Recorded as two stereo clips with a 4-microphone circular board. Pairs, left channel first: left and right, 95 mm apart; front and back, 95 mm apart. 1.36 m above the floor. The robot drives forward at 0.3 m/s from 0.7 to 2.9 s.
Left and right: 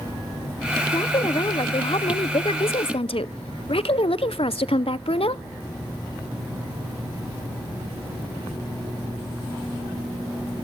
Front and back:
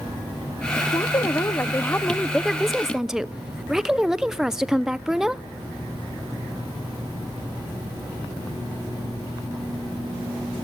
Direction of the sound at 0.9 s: 50° left.